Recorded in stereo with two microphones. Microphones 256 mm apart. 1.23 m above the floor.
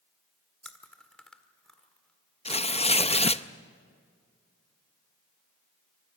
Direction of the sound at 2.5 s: 25° left (ahead or behind).